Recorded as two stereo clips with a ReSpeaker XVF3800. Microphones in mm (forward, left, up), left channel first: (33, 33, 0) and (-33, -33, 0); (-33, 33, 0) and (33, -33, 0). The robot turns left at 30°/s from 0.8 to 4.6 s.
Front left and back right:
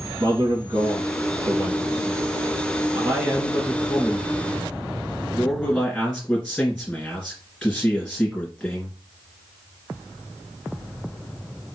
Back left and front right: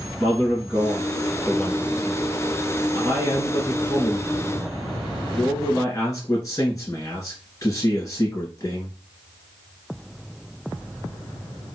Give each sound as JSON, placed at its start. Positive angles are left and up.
{"t": 0.2, "sound": "a man speaking", "azimuth_deg": -120, "distance_m": 2.0}